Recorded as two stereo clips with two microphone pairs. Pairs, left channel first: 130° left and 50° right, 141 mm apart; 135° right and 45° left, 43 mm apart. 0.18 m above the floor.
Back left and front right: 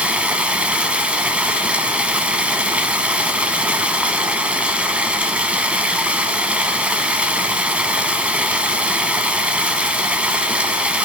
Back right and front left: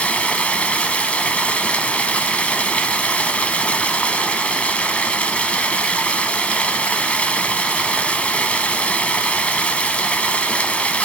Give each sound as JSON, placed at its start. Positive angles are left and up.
{"t": 0.0, "sound": "running water", "azimuth_deg": -125, "distance_m": 0.7}